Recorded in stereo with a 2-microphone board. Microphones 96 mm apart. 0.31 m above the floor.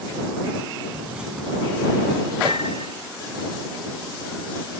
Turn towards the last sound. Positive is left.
turn(degrees=-70)  # may be behind; listen again after turning